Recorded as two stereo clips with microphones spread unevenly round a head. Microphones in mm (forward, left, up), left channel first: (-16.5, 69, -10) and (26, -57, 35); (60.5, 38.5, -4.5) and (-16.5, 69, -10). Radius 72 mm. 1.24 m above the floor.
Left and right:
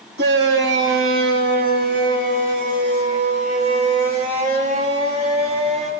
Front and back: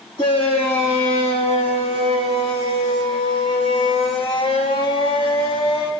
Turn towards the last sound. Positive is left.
turn(degrees=-30)